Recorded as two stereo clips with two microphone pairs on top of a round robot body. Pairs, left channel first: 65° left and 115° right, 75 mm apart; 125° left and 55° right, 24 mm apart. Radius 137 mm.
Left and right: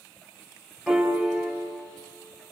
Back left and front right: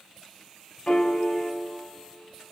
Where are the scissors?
I don't hear scissors.